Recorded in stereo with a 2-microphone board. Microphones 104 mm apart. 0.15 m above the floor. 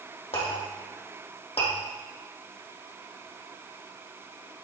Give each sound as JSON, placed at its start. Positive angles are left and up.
{"t": 0.3, "sound": "a clink", "side_deg": 75, "distance_m": 4.0}